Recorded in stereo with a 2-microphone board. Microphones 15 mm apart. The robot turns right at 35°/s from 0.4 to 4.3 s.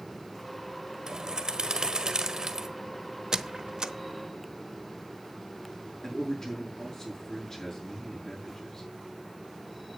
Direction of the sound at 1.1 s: 105° right.